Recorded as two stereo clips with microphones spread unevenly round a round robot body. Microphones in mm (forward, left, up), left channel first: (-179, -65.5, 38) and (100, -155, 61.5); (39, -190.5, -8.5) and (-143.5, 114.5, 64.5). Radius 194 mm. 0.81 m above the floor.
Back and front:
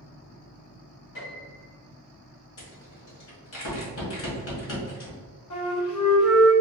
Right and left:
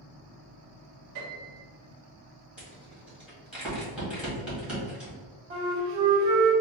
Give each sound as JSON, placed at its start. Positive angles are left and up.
{"t": 1.1, "sound": "a piano", "azimuth_deg": 155, "distance_m": 1.9}
{"t": 2.6, "sound": "a rattle", "azimuth_deg": -155, "distance_m": 1.9}
{"t": 5.5, "sound": "a flute", "azimuth_deg": 180, "distance_m": 1.8}